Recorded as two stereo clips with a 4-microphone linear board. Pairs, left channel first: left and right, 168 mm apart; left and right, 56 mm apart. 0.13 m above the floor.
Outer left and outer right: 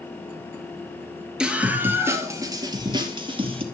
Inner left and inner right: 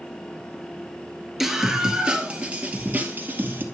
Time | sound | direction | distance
1.4 | a scream | 5° right (ahead or behind) | 2 m